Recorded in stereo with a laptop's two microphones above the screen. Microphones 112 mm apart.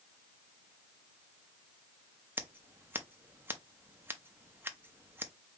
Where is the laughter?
No laughter in this recording.